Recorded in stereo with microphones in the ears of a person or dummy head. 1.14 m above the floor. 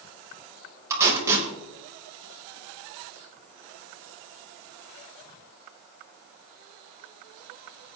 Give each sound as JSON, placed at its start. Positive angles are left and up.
{"t": 0.9, "sound": "tape being pulled", "side_deg": -20, "distance_m": 4.5}